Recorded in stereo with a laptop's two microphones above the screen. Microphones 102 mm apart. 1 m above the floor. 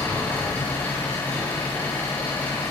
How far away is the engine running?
About 6.5 m.